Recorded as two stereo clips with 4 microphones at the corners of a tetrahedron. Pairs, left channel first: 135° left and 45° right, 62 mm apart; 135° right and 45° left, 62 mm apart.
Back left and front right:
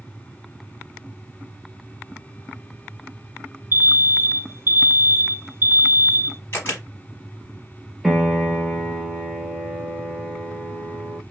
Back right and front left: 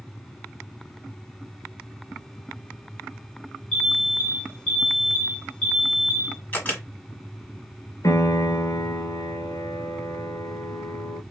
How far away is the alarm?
About 1.0 m.